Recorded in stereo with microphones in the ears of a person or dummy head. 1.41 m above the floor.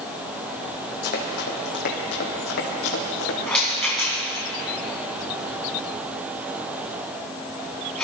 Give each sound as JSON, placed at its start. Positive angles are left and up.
{"t": 1.0, "sound": "running footsteps", "side_deg": 50, "distance_m": 3.0}
{"t": 3.5, "sound": "a rattle", "side_deg": 5, "distance_m": 3.0}